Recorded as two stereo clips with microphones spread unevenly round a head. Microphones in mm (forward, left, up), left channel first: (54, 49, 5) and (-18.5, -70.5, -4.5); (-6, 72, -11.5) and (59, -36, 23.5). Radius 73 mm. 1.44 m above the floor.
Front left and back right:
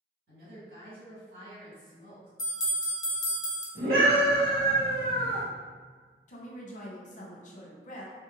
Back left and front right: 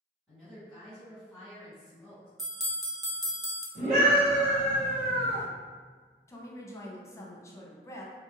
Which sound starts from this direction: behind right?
A woman speaking, at 0.3 s.